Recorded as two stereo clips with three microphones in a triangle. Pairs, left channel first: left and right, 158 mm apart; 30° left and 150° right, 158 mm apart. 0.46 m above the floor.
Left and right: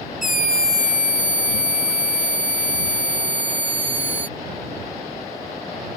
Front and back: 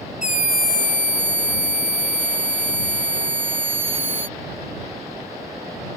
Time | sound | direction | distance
0.2 | a scream | 65° left | ?